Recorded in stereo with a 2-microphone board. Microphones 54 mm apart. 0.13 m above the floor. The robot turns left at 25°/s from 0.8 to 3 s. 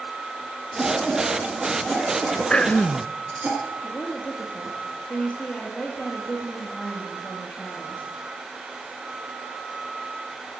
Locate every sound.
0.8 s a cough: 5° left (ahead or behind), 1.8 m; by 3.5 s 30° right (ahead or behind), 1.8 m
2.5 s throat clearing: 20° left (ahead or behind), 0.5 m; by 3.1 s 15° left (ahead or behind), 0.5 m
3.8 s a woman speaking: 25° left (ahead or behind), 3.5 m